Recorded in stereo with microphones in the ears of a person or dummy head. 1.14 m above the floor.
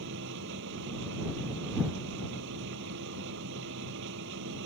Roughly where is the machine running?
Right.